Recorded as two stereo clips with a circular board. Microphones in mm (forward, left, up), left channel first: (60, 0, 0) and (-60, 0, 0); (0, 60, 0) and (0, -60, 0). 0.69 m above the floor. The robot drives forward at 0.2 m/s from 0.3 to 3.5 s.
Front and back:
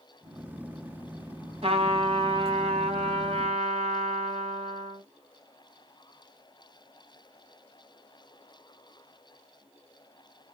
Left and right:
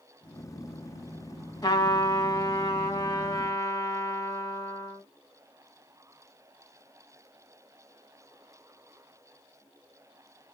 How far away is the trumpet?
About 1.1 m.